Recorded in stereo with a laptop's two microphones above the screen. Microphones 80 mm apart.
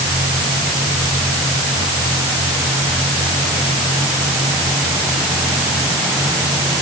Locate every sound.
Only background noise.